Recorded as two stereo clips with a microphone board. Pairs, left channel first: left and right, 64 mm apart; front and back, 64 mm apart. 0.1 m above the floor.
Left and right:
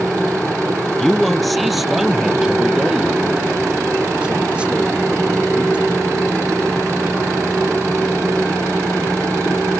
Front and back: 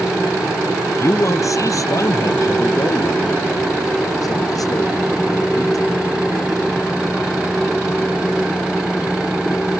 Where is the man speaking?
10° left; by 5.8 s 20° right.